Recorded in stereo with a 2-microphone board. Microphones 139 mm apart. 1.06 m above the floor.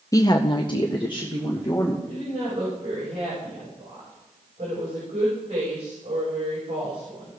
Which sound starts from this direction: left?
A woman speaking, at 0.1 s.